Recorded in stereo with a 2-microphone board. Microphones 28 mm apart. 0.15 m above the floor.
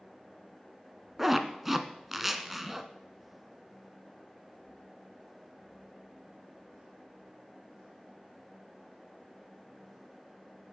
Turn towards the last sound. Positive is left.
turn(degrees=-10)  # may be behind; listen again after turning